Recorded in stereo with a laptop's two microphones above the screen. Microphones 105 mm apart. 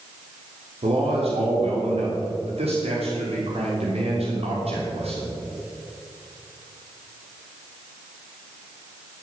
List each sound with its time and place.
0.8 s a man speaking: 75° right (ahead or behind), 3 m